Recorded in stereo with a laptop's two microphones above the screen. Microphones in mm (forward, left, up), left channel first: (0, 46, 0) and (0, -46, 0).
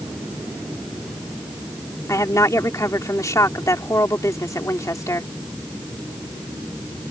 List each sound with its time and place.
2.1 s a woman speaking: 35° left (ahead or behind)